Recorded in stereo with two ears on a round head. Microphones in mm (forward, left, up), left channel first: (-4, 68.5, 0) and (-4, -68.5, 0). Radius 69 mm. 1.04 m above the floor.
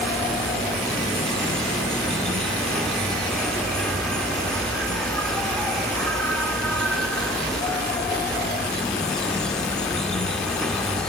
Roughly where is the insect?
Centre.